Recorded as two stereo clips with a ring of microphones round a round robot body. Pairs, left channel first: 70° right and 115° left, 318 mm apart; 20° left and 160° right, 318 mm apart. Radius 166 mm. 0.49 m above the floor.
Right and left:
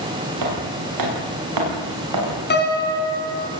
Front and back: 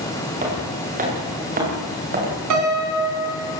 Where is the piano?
125° right, 4 m.